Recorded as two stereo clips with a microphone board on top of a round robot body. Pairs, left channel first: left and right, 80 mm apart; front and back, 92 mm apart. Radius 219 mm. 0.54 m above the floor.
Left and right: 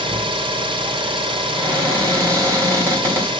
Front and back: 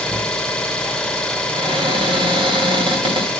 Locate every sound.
0.0 s an engine running: 80° right, 0.9 m
1.5 s a cupboard door: 145° right, 3 m